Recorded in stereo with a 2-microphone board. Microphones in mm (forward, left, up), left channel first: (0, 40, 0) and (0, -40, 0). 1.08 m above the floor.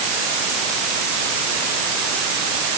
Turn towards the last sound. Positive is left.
No sound to turn to.